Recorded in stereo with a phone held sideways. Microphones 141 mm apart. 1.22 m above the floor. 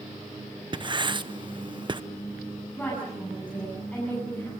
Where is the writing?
35° right (ahead or behind), 0.8 m.